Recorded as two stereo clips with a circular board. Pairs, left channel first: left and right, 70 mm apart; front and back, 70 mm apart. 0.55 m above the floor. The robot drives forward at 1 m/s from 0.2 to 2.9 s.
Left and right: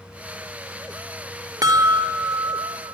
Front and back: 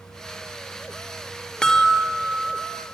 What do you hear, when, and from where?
1.6 s a chime: 75° right, 1.3 m; by 2.9 s 130° right, 1.6 m